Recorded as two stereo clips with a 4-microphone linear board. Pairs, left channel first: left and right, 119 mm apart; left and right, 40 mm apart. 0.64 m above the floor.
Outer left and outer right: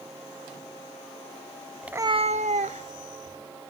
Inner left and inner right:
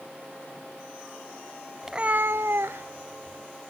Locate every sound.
1.8 s a cat meowing: 5° right (ahead or behind), 0.7 m; by 3.4 s 60° right (ahead or behind), 2 m